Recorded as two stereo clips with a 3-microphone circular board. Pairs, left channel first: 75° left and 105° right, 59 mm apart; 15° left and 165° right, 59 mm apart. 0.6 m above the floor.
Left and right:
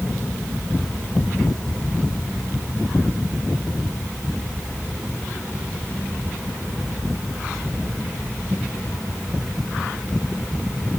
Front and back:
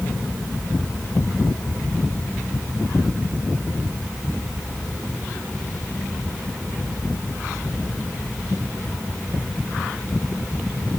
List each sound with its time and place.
Only background noise.